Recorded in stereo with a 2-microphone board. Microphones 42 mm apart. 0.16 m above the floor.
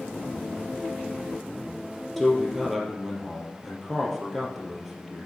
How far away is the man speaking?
About 3.5 m.